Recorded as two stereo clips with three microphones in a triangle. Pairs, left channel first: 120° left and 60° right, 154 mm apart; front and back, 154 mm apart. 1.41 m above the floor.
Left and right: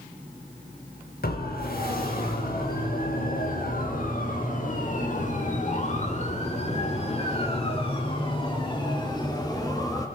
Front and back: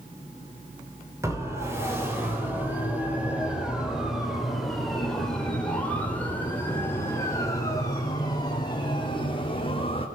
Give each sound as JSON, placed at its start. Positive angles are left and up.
{"t": 1.2, "sound": "a siren", "azimuth_deg": 110, "distance_m": 7.0}